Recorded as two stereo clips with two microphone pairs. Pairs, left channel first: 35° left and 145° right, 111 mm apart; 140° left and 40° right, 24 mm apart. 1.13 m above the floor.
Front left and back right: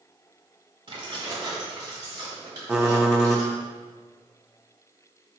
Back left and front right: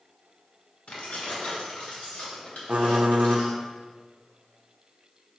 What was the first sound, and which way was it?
Keys jangling, 175° left.